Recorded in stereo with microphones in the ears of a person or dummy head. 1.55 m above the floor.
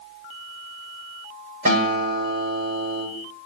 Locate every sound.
1.6 s a guitar: 50° right (ahead or behind), 6.5 m